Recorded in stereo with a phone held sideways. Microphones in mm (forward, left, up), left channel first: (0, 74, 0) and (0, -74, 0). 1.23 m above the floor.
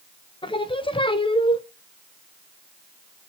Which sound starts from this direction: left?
Singing, at 0.4 s.